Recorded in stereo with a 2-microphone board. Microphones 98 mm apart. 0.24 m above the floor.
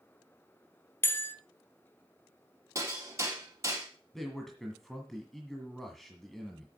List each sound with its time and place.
1.0 s a bell: 25° left (ahead or behind), 0.9 m
2.8 s hammering: 30° right (ahead or behind), 3.5 m
4.1 s a man speaking: centre (ahead or behind), 1.7 m